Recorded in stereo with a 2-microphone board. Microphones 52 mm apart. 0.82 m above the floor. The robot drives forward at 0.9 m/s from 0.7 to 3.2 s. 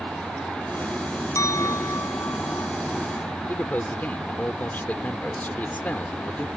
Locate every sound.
1.4 s a clink: 80° left
3.5 s a man speaking: 35° left (ahead or behind)